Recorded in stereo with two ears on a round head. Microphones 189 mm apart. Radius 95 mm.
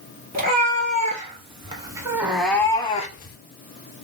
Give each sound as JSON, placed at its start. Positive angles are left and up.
{"t": 0.3, "sound": "a cat meowing", "side_deg": -40, "distance_m": 1.5}